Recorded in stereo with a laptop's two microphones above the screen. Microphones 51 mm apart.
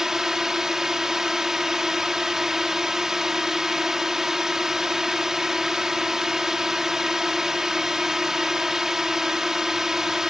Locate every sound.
0.0 s a drone: 10° right (ahead or behind)